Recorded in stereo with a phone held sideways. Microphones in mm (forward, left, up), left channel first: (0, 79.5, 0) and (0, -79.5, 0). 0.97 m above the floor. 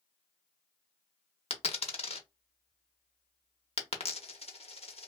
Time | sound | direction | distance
1.5 | a dropped coin | 40° left (ahead or behind) | 0.6 m